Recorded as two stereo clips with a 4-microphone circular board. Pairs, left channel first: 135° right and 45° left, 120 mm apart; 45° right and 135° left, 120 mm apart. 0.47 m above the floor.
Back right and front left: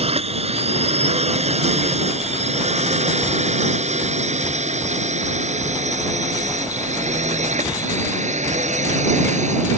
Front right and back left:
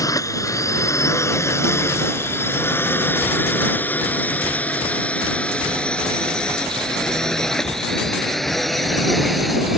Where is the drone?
15° left; by 9.8 s 45° left.